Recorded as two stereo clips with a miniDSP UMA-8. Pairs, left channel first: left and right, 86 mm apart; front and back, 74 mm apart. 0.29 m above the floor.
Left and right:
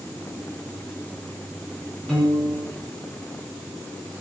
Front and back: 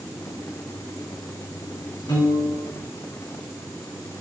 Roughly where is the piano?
Ahead.